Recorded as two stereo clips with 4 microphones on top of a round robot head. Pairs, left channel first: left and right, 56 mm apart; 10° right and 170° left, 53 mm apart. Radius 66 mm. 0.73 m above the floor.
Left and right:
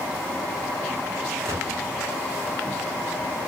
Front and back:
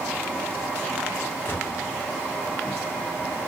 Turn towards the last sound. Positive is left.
turn(degrees=-60)